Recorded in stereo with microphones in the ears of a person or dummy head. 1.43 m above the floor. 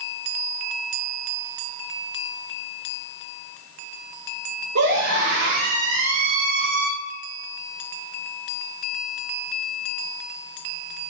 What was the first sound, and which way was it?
A scream, 60° right (ahead or behind).